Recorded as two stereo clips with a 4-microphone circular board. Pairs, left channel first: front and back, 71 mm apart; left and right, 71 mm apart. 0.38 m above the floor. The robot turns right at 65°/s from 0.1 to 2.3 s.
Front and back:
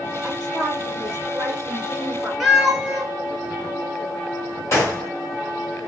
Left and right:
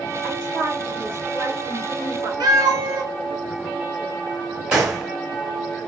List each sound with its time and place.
0.2 s a woman speaking: 110° left, 1.8 m; by 2.3 s 115° right, 1.8 m
2.4 s a cat meowing: 95° right, 0.7 m
4.7 s a gunshot: 15° right, 1.2 m